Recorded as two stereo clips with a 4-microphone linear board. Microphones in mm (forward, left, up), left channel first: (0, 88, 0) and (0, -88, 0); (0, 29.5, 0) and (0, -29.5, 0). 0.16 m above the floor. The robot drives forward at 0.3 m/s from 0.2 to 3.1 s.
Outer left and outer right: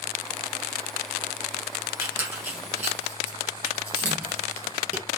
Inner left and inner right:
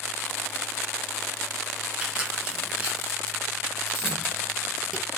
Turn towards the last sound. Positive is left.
turn(degrees=-15)  # may be behind; listen again after turning